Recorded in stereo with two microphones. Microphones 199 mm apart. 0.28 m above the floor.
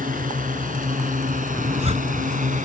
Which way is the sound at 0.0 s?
45° right (ahead or behind).